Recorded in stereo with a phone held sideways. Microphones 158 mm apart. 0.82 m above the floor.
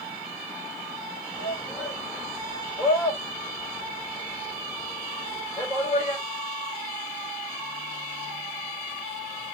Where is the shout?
20° right (ahead or behind), 2.5 m.